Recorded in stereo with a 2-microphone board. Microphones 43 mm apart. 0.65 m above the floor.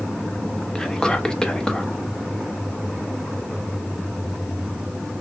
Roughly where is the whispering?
Centre.